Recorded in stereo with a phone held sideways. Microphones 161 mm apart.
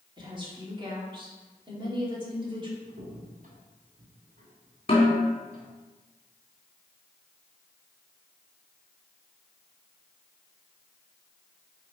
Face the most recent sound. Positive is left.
turn(degrees=40)  # may be behind; listen again after turning